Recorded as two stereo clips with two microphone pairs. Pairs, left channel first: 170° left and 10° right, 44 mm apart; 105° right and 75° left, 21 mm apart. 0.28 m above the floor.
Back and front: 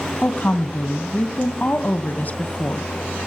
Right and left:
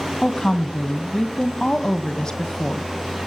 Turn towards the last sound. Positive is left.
turn(degrees=-155)